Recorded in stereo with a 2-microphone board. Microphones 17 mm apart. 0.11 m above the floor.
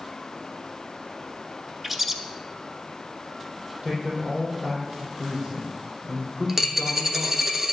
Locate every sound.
1.8 s a bird: 10° right (ahead or behind), 0.7 m
3.8 s a man speaking: 60° right (ahead or behind), 4.5 m
6.5 s a dropped coin: 20° right (ahead or behind), 1.0 m